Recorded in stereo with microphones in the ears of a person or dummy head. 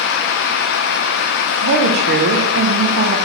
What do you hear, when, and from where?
1.6 s a woman speaking: 55° right (ahead or behind), 0.6 m